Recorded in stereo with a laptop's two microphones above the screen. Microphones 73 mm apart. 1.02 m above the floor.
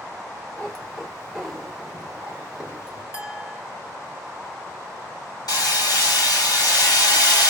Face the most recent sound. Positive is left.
turn(degrees=70)  # may be behind; listen again after turning